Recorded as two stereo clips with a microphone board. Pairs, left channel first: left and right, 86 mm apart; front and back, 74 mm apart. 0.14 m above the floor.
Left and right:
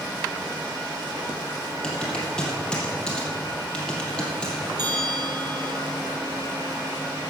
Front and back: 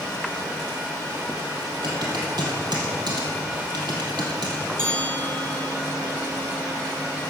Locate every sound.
1.8 s typing on a keyboard: 170° left, 3.5 m
4.8 s a bell: 120° right, 4 m